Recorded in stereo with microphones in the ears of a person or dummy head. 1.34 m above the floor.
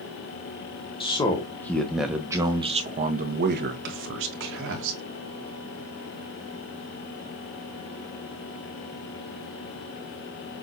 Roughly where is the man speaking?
Left.